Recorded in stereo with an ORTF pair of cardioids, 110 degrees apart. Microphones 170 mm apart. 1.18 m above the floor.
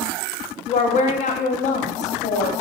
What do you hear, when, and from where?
0.7 s a woman speaking: 45° left, 0.5 m